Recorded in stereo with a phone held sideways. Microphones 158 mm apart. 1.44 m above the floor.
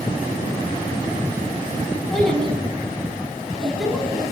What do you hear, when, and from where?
2.1 s a child speaking: centre (ahead or behind), 8 m